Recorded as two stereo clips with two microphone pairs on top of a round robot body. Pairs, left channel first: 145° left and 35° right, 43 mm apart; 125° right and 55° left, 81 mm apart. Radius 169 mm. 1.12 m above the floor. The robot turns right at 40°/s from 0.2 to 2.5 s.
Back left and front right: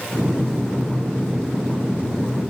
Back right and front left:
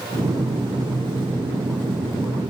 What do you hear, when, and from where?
Only background noise.